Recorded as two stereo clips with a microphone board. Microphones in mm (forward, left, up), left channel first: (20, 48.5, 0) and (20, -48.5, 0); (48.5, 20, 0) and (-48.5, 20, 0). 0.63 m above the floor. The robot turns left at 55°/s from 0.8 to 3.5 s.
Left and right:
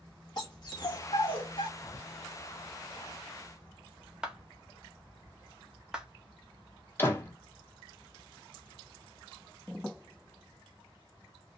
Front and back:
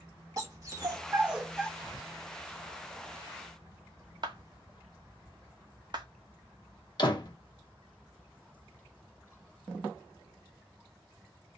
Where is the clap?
170° right, 0.7 m.